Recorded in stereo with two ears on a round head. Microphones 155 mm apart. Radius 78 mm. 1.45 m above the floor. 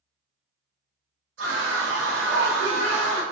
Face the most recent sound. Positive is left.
turn(degrees=-80)